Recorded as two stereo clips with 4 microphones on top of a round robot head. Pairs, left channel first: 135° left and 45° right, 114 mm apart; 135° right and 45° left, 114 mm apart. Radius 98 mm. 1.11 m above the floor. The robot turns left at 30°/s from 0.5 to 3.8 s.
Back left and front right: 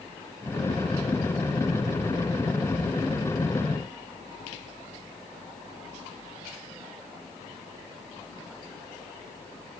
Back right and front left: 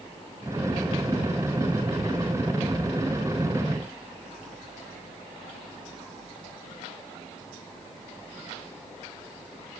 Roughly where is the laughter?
I don't hear laughter.